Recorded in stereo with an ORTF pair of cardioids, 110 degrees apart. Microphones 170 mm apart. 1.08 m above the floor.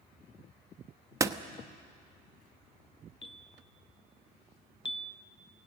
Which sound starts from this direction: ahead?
A door slam, at 1.2 s.